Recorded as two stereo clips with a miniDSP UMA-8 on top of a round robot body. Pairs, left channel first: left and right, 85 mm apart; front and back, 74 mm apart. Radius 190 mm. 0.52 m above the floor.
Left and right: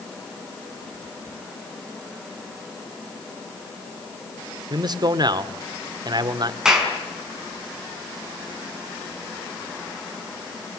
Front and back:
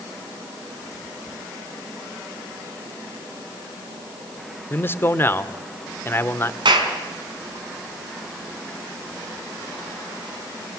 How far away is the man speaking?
About 2 m.